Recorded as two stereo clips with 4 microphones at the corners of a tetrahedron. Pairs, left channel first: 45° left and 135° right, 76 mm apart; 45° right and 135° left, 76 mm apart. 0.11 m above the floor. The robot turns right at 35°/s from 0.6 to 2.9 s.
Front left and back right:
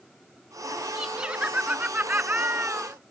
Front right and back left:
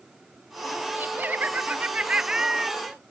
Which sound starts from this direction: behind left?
Laughter, at 0.9 s.